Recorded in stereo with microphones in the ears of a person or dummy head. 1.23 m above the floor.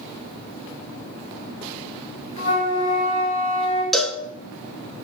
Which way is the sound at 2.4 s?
35° left (ahead or behind).